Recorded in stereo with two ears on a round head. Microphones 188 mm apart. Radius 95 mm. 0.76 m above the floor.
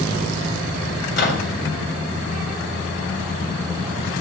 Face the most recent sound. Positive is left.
turn(degrees=60)  # may be behind; listen again after turning